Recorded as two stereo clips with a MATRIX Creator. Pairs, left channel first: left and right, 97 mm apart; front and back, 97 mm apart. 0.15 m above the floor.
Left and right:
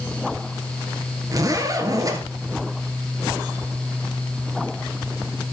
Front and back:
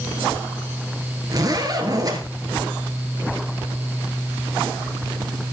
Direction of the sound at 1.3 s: 135° right.